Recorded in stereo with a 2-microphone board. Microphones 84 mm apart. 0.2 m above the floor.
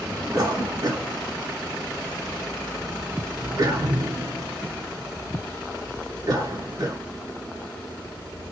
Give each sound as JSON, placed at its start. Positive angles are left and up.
{"t": 0.3, "sound": "a cough", "side_deg": -40, "distance_m": 1.6}